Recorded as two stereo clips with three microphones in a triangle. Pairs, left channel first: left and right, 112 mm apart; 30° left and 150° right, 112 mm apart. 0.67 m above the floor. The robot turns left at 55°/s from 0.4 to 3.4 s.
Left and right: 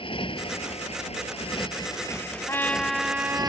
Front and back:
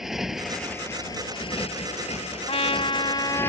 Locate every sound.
0.0 s a motorcycle: 125° left; by 3.5 s 40° right
2.5 s a trumpet: 25° left; by 3.5 s 25° right